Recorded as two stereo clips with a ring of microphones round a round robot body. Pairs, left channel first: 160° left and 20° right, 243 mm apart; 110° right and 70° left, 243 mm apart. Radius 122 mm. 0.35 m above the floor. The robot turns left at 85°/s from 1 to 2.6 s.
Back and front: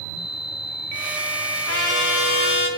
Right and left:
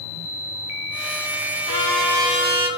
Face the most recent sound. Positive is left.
turn(degrees=110)